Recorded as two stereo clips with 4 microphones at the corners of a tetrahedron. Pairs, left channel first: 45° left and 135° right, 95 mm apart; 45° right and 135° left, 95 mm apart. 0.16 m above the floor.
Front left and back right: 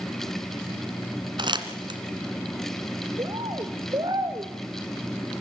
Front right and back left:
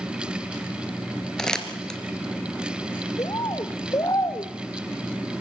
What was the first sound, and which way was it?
Crumpling, 125° right.